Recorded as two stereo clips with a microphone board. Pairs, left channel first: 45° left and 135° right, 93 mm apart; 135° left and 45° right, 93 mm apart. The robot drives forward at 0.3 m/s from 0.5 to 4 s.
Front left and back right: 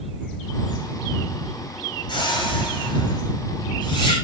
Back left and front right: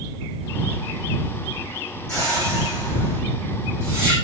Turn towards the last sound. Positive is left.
turn(degrees=85)